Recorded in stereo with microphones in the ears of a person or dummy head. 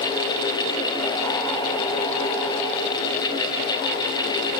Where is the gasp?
No gasp in this recording.